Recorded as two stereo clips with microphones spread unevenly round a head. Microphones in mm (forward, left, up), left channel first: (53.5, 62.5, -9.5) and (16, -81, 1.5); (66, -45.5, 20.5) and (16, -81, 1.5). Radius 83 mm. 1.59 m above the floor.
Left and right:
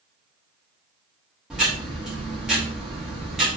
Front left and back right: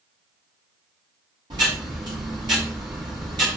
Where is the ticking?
170° left, 2.5 m.